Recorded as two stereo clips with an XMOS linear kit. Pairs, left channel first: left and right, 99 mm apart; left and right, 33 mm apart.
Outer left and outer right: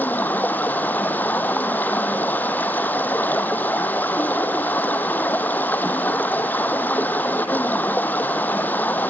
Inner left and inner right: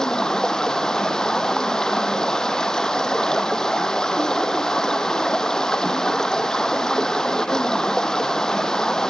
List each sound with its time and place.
0.0 s running water: 20° left (ahead or behind), 1.1 m